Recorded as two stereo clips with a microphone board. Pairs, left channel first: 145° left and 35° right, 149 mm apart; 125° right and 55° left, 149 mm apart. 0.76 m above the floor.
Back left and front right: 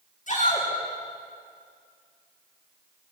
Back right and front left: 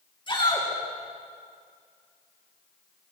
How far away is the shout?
About 9 m.